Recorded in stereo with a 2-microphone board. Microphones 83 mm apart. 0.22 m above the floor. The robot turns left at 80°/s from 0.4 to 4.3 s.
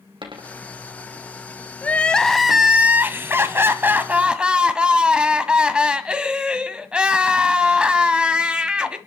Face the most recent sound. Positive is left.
turn(degrees=-10)  # may be behind; listen again after turning